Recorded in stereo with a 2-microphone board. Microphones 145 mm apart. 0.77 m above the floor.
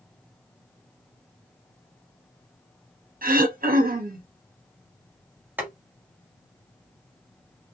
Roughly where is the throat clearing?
Right.